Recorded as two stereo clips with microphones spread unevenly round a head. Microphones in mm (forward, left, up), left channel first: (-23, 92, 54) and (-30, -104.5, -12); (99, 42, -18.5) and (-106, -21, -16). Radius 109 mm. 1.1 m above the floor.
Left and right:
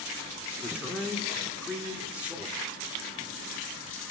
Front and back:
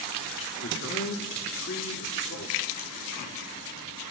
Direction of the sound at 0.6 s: 15° right.